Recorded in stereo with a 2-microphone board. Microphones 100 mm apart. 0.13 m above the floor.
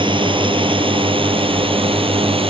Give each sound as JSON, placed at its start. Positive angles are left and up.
{"t": 0.0, "sound": "a drone", "side_deg": -55}